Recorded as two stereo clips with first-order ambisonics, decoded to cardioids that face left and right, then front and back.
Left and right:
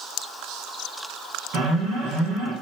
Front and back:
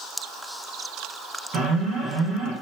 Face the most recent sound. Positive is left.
turn(degrees=-130)